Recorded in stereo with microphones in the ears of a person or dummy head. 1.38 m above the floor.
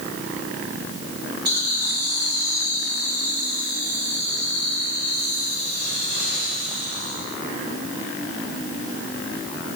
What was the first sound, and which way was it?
Laughter, 50° right (ahead or behind).